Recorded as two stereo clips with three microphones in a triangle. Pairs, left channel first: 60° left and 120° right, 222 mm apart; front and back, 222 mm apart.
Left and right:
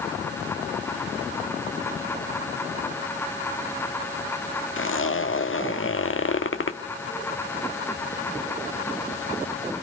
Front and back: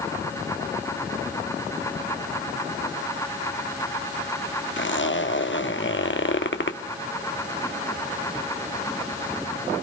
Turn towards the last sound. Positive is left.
turn(degrees=35)